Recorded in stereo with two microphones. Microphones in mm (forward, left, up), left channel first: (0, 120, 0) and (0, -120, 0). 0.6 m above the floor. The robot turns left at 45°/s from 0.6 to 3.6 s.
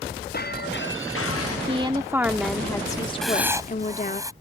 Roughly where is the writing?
Centre.